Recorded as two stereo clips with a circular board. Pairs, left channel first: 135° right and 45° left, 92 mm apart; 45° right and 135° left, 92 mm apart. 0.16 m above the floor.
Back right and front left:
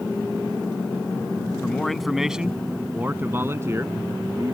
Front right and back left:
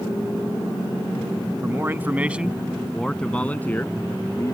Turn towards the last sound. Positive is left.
turn(degrees=5)